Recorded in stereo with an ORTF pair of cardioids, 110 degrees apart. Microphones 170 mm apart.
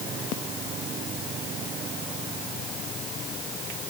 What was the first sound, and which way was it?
Only background noise.